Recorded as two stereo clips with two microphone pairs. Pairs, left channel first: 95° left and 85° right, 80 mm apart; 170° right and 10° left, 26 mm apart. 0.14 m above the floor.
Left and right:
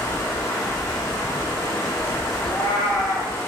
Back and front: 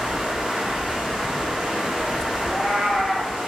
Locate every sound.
0.0 s running water: 60° left, 0.9 m
2.4 s a cat meowing: 115° left, 1.1 m